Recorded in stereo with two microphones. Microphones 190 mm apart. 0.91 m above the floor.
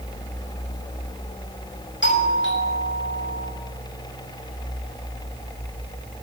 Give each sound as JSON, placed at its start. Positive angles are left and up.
{"t": 2.0, "sound": "a doorbell", "side_deg": 80, "distance_m": 6.0}